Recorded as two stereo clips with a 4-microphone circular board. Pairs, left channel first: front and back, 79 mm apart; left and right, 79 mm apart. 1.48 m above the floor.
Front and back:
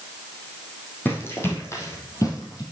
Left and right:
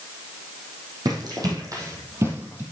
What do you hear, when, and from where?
1.1 s running footsteps: 60° right, 4 m; by 2.6 s 25° right, 3 m